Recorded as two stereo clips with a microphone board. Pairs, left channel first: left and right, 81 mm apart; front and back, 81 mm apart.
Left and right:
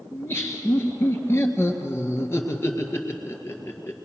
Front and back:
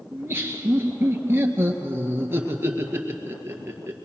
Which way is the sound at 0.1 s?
130° left.